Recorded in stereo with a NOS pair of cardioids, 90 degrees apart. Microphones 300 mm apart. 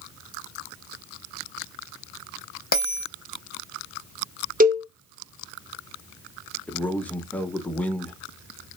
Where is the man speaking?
5° left, 0.8 m.